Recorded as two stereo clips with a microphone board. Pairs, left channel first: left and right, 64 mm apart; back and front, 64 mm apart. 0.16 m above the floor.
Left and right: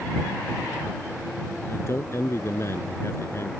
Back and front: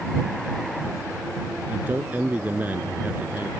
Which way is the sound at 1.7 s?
55° left.